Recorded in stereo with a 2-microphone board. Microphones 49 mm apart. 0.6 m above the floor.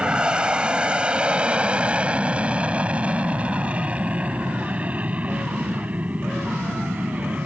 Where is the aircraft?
20° right (ahead or behind); by 7.5 s 35° right (ahead or behind).